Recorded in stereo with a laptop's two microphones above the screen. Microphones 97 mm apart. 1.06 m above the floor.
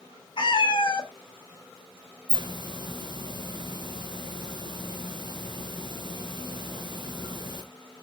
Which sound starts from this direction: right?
A hiss, at 2.3 s.